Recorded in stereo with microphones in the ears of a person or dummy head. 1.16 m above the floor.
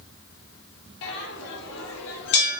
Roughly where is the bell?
Left.